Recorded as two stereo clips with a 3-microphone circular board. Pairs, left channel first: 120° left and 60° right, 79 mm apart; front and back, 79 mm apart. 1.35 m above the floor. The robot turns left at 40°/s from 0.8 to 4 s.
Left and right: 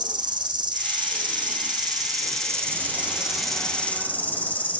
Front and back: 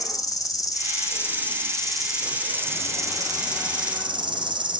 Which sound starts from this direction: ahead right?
An insect, at 0.0 s.